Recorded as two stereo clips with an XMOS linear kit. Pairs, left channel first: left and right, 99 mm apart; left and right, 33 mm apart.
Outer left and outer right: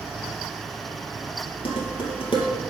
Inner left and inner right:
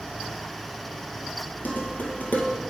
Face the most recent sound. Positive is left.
turn(degrees=65)  # may be behind; listen again after turning